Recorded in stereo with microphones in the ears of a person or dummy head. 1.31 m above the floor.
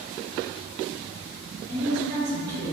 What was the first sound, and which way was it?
A woman speaking, 65° right (ahead or behind).